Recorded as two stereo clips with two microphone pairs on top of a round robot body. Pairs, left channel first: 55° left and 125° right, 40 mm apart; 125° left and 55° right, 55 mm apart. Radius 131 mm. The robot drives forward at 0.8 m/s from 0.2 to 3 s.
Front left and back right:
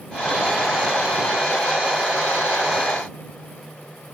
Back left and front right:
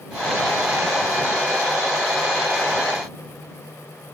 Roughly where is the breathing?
No breathing in this recording.